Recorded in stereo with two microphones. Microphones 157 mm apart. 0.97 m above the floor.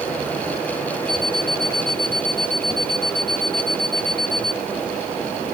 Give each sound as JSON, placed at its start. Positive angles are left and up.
{"t": 1.1, "sound": "an alarm clock", "side_deg": -75}